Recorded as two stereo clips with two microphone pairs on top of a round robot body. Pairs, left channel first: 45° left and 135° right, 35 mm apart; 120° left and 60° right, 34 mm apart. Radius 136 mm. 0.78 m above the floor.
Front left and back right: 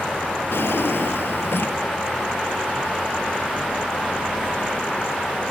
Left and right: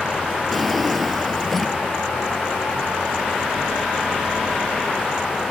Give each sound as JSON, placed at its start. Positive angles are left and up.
{"t": 0.5, "sound": "a drawer", "azimuth_deg": 35}